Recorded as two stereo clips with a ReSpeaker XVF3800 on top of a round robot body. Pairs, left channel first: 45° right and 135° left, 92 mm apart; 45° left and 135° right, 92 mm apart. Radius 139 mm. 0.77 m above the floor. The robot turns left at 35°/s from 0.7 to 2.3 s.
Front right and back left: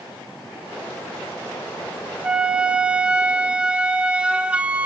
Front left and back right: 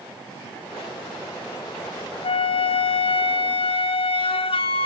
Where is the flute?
60° left, 0.7 m.